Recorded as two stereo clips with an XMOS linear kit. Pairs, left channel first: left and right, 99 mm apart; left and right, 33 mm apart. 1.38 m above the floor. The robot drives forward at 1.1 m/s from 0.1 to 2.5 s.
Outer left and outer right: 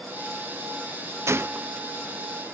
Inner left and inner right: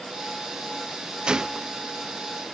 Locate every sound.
1.3 s a gunshot: 25° right (ahead or behind); by 1.9 s 15° right (ahead or behind)